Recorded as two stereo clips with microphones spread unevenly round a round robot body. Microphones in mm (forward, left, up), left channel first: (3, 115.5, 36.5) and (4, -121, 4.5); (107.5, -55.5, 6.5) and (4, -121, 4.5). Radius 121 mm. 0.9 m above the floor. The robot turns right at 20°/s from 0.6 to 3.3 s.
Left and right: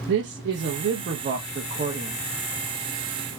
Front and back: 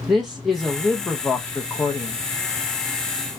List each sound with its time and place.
0.1 s a man speaking: 60° right, 0.7 m; by 2.2 s 30° right, 0.7 m